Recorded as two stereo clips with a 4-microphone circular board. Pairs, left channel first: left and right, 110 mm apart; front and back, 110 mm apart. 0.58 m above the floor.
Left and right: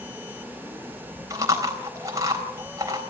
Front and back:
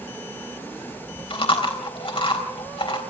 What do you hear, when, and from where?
1.3 s chewing: 35° right, 3.5 m